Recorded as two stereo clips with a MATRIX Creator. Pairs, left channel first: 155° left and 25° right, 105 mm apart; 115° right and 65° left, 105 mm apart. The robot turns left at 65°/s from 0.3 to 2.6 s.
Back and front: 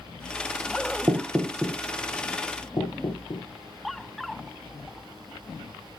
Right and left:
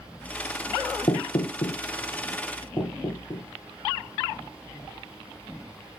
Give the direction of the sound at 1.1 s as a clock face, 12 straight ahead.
3 o'clock.